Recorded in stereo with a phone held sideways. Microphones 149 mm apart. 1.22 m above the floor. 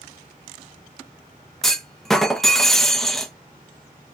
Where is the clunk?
Centre (ahead or behind), 0.5 m.